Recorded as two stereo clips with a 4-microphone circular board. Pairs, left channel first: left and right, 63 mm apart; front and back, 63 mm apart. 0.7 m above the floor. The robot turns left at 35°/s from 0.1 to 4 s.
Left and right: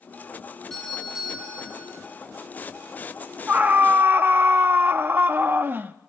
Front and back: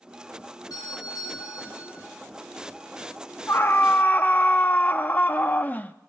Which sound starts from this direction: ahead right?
A scream, at 3.5 s.